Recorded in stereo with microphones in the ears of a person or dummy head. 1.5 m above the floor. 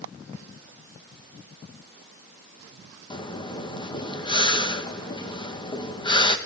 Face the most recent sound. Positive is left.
turn(degrees=25)  # may be behind; listen again after turning